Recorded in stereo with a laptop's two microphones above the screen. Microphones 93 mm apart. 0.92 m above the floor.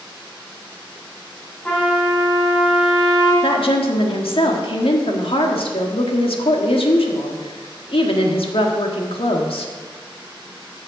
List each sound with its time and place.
1.6 s a trumpet: 15° left (ahead or behind), 4 m
3.4 s a woman speaking: 80° left, 1.5 m